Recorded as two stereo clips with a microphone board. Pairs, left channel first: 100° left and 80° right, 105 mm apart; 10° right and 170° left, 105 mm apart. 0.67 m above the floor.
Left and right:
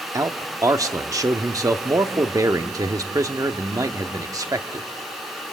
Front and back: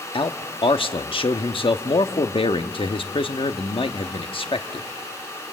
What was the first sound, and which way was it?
A man speaking, 30° right.